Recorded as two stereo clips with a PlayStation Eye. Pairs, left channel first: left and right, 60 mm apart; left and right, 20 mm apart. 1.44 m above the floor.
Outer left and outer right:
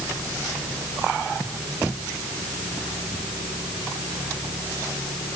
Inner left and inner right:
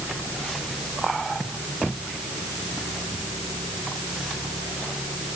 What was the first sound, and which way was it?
Only background noise.